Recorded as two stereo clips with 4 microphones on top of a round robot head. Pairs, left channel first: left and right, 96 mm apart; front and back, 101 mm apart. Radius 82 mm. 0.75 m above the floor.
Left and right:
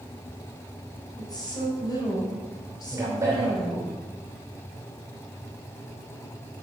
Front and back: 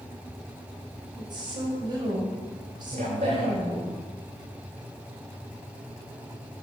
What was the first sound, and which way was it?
A woman speaking, 135° left.